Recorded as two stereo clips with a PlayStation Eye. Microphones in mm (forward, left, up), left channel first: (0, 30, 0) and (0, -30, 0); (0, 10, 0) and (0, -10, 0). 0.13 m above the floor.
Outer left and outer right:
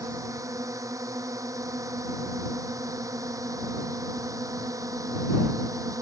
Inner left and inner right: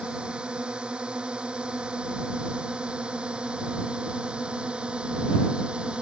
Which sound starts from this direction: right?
A drone, at 0.0 s.